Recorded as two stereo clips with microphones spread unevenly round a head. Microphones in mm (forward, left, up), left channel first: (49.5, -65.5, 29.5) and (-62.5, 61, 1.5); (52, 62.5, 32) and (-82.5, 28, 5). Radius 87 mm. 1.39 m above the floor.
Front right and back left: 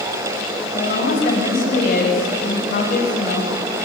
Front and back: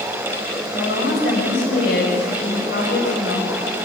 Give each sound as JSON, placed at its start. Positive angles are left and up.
{"t": 0.7, "sound": "a woman speaking", "azimuth_deg": -5, "distance_m": 6.0}